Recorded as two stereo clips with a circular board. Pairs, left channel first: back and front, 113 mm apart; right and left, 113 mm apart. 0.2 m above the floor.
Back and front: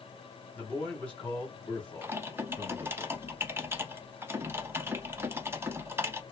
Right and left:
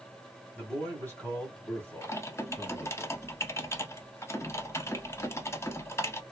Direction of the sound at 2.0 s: 50° right.